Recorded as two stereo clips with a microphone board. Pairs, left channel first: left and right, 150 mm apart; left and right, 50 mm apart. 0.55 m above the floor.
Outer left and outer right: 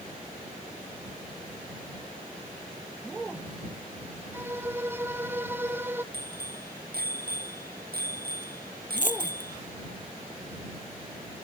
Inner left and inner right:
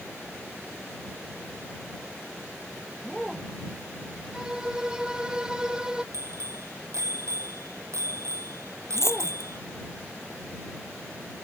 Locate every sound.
4.3 s a violin: 15° right (ahead or behind)
6.1 s a bicycle bell: 85° right
9.0 s a dropped coin: 60° left (ahead or behind)